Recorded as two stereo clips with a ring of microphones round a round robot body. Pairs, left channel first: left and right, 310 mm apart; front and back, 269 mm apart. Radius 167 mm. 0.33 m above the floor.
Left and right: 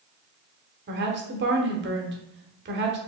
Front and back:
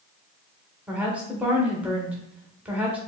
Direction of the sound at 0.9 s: 100° right.